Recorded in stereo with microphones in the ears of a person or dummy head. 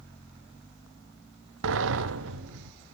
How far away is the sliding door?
About 0.8 m.